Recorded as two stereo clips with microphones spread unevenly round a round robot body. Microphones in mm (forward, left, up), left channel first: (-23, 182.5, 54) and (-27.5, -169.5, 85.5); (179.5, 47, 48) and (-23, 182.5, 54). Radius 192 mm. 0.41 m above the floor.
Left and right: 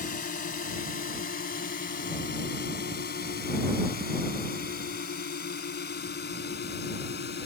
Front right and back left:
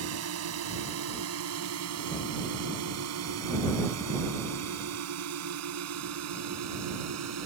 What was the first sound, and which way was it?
A drone, 155° left.